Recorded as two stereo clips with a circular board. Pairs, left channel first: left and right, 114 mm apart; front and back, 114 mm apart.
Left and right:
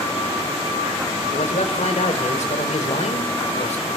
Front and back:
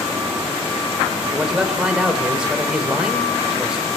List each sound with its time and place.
1.3 s a man speaking: 95° left, 4 m